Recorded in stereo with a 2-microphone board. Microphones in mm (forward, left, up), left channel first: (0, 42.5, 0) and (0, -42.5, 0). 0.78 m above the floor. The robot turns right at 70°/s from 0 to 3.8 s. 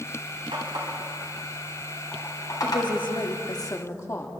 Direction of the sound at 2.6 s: 60° left.